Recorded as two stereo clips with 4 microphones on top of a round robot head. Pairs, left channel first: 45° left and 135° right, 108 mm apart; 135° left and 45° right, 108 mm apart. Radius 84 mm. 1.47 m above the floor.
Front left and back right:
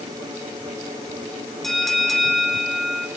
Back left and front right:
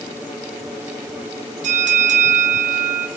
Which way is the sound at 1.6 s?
40° right.